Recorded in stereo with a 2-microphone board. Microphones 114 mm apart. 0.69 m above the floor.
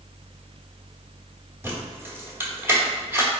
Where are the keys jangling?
20° right (ahead or behind), 1.1 m.